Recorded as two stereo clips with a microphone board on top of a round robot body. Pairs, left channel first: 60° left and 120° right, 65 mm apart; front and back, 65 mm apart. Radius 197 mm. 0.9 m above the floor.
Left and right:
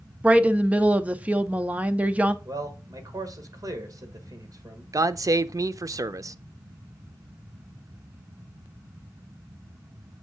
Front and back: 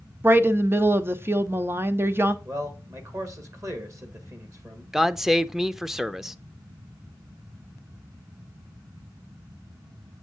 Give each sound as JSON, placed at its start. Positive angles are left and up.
{"t": 0.2, "sound": "a woman speaking", "azimuth_deg": -175, "distance_m": 0.8}
{"t": 2.5, "sound": "a man speaking", "azimuth_deg": -145, "distance_m": 1.8}
{"t": 4.9, "sound": "a man speaking", "azimuth_deg": -95, "distance_m": 0.5}